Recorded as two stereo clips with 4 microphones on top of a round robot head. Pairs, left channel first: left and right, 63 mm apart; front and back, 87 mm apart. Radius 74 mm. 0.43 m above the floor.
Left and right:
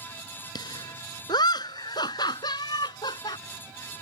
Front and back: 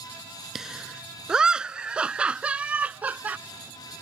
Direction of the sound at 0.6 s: 95° left.